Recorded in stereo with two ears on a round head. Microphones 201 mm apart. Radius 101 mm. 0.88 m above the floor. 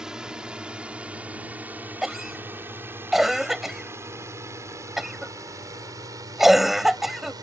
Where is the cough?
Centre (ahead or behind).